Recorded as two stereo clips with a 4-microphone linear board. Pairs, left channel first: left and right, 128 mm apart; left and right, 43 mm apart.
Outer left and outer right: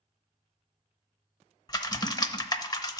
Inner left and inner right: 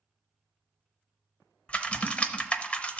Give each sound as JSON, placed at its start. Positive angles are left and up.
{"t": 1.7, "sound": "typing on a keyboard", "side_deg": 30, "distance_m": 0.7}